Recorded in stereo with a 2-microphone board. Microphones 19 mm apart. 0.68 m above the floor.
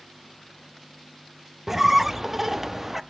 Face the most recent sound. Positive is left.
turn(degrees=-20)  # may be behind; listen again after turning